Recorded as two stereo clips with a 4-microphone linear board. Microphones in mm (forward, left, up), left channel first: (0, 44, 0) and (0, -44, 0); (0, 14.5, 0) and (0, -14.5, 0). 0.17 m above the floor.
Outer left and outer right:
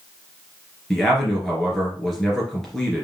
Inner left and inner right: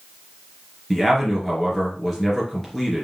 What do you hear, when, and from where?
0.9 s a man speaking: 5° left (ahead or behind), 3 m